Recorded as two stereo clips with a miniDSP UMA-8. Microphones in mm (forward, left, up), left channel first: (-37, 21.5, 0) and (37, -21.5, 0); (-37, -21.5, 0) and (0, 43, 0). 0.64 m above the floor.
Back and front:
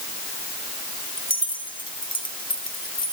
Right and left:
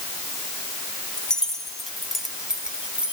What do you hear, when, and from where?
1.2 s keys jangling: 160° left, 3 m; by 3.1 s 135° left, 3 m